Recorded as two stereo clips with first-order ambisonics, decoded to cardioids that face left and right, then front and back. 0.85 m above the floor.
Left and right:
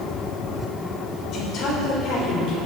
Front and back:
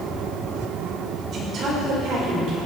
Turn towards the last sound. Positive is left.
turn(degrees=140)